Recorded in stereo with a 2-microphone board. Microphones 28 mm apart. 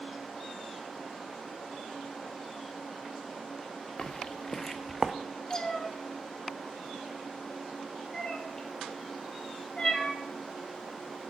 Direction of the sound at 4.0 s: 35° left (ahead or behind).